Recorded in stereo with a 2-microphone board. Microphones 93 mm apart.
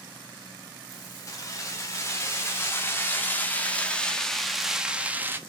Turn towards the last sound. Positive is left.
turn(degrees=-25)  # may be behind; listen again after turning